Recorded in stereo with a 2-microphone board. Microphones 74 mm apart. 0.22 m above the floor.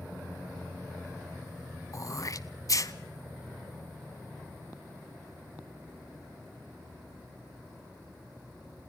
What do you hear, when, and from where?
1.9 s throat clearing: 45° left (ahead or behind), 0.9 m